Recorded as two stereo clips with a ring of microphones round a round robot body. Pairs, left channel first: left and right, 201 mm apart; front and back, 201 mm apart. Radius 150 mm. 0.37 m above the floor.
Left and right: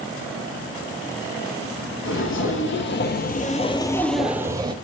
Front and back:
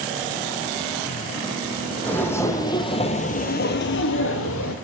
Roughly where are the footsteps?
Left.